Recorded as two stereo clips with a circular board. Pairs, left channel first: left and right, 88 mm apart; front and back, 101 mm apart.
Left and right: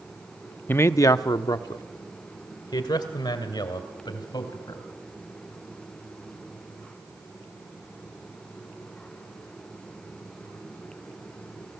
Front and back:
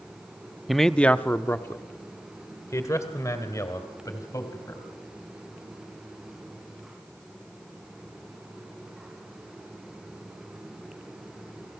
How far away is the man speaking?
About 0.5 m.